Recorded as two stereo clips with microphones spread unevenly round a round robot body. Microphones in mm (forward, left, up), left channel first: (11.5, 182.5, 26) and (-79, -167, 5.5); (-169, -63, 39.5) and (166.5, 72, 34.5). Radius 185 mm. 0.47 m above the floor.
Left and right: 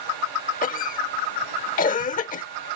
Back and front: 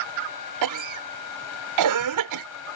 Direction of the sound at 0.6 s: 10° left.